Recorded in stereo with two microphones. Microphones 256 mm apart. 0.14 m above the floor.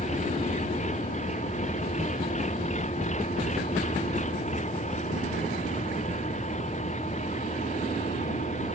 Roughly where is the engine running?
Left.